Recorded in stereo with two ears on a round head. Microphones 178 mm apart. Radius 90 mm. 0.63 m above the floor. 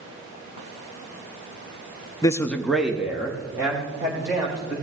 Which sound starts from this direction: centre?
A man speaking, at 2.2 s.